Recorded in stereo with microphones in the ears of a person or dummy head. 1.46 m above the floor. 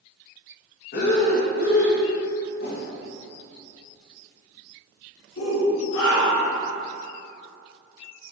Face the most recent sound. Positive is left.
turn(degrees=70)  # may be behind; listen again after turning